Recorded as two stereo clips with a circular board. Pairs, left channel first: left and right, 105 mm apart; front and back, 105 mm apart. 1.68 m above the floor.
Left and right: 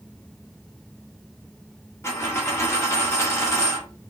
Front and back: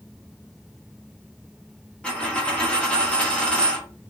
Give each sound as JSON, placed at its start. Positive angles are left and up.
{"t": 2.0, "sound": "a dropped coin", "azimuth_deg": 65, "distance_m": 1.1}